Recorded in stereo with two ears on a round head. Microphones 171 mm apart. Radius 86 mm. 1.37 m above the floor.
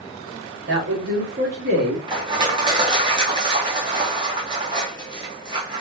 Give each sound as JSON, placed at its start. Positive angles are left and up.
{"t": 0.7, "sound": "a man speaking", "side_deg": -60, "distance_m": 2.5}
{"t": 2.1, "sound": "crushing", "side_deg": -25, "distance_m": 2.0}